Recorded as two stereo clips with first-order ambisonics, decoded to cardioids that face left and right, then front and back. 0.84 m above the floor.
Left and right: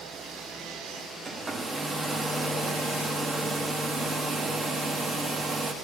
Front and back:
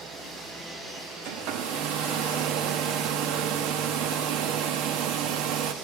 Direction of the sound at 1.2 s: 165° right.